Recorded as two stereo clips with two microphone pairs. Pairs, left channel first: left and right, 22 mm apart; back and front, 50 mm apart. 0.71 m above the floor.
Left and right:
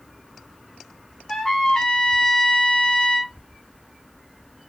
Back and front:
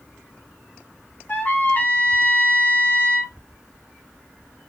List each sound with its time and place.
1.3 s a trumpet: 140° left, 0.6 m